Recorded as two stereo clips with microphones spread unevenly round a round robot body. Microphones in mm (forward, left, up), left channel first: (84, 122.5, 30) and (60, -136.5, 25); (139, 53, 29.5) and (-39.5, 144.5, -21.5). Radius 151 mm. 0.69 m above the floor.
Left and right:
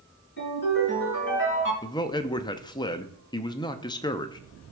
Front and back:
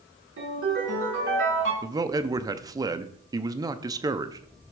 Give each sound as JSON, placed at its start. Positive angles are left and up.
{"t": 0.4, "sound": "a ringtone", "azimuth_deg": 140, "distance_m": 6.0}
{"t": 1.8, "sound": "a man speaking", "azimuth_deg": 145, "distance_m": 0.5}